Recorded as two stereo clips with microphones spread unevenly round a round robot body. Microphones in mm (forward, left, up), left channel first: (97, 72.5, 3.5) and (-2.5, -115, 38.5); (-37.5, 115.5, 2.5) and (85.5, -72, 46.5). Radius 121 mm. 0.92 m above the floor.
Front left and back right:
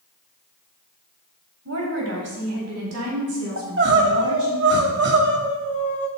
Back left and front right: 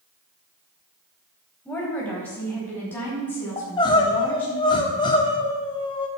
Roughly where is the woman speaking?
Behind right.